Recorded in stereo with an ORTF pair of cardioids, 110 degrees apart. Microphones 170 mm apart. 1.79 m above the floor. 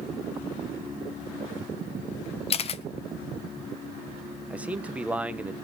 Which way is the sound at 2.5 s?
35° left.